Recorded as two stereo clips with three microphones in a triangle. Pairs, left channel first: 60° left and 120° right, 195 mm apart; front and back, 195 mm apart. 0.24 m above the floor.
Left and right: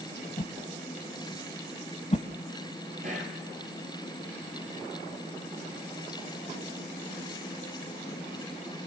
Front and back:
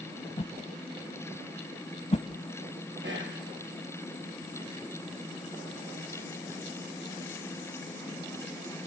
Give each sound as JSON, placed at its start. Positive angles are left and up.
{"t": 0.4, "sound": "a whoosh", "azimuth_deg": 30, "distance_m": 0.9}
{"t": 3.0, "sound": "whispering", "azimuth_deg": -170, "distance_m": 6.0}